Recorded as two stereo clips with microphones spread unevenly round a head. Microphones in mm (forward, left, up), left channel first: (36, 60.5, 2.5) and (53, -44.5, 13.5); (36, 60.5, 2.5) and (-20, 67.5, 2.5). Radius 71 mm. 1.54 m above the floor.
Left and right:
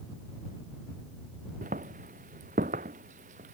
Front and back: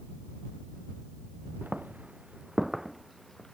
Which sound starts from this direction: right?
Footsteps, at 1.6 s.